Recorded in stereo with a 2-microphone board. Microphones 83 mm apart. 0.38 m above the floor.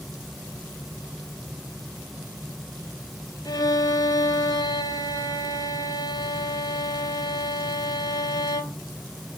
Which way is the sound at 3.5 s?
50° left (ahead or behind).